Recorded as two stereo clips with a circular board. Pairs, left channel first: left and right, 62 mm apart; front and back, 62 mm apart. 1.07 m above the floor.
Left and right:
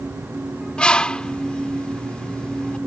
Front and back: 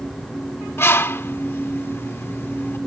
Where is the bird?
20° left.